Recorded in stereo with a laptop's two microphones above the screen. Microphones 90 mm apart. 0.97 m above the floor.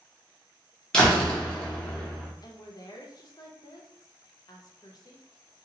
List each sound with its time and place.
0.9 s a door slam: 10° left (ahead or behind), 0.7 m
2.4 s a woman speaking: 50° left (ahead or behind), 0.6 m